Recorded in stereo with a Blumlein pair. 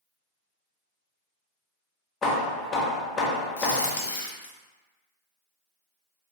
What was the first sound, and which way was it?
Hammering, 20° left.